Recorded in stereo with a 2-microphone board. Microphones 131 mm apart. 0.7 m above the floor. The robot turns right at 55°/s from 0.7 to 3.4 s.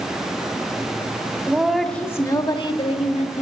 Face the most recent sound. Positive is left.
turn(degrees=95)